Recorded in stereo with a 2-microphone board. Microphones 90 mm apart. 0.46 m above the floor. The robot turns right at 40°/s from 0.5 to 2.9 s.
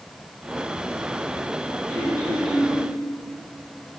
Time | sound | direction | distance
1.9 | throat clearing | 145° left | 1.8 m